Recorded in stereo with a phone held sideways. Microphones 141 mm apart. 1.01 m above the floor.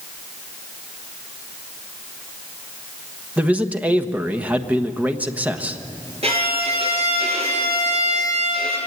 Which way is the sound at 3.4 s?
10° right (ahead or behind).